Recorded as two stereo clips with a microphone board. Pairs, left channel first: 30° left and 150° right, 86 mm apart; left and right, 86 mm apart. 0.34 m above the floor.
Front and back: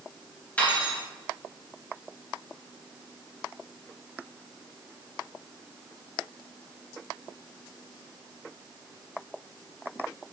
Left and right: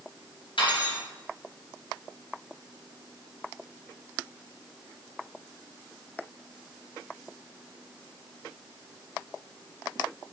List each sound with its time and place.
0.6 s cutlery clinking: 105° left, 3 m